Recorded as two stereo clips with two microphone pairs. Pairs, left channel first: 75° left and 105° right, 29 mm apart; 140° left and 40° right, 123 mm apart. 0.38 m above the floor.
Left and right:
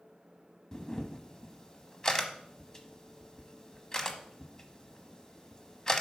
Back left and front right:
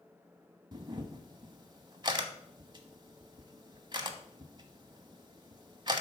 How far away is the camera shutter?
About 1.0 m.